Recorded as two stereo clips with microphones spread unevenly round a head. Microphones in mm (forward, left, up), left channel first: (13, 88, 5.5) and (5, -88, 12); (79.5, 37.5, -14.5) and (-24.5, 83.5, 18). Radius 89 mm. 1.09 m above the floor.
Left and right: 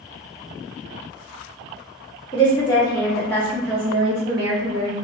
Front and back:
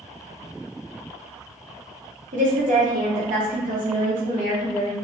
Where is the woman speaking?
150° left, 1.5 m; by 4.9 s 100° right, 0.7 m.